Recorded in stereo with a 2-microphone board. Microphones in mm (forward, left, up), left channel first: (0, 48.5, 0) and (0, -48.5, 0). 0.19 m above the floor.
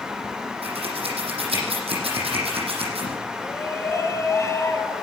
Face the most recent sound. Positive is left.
turn(degrees=30)  # may be behind; listen again after turning